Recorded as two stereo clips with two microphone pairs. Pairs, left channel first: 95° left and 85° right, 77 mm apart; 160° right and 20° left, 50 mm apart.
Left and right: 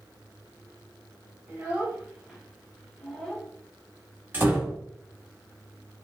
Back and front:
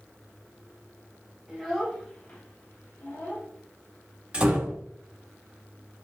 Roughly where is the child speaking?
Ahead right.